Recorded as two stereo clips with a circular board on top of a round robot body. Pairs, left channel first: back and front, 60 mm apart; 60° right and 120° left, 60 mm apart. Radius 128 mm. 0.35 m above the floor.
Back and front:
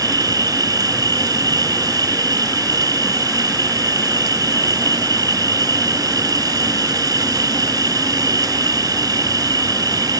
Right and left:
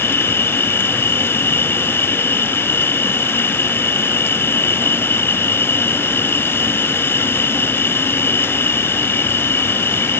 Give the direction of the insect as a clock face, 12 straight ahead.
12 o'clock.